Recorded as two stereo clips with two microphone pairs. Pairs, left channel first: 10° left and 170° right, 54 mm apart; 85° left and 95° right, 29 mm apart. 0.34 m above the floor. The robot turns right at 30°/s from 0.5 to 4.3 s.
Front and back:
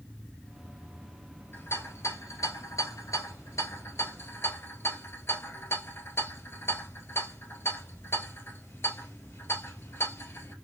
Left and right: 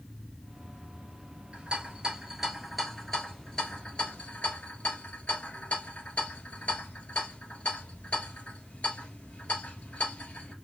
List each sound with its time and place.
1.5 s a rattle: 35° right, 1.7 m; by 10.5 s 45° left, 1.7 m